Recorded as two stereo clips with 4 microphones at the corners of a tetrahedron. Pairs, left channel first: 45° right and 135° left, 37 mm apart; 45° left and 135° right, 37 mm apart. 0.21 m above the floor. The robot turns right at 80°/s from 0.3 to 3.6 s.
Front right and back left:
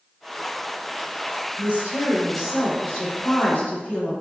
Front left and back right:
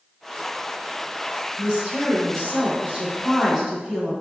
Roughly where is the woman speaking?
Behind left.